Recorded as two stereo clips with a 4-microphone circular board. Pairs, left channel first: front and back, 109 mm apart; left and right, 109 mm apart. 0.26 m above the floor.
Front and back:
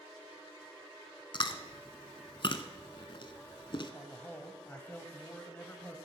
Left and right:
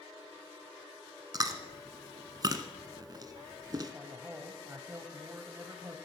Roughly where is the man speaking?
Ahead right.